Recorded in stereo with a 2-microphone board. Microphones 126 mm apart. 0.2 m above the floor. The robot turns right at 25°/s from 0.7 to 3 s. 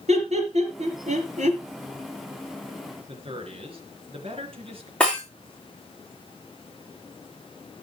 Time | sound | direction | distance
0.1 | laughter | 60° right (ahead or behind) | 3 m
3.1 | a man speaking | 50° right (ahead or behind) | 3.5 m
5.0 | breaking glass | 10° left (ahead or behind) | 5.5 m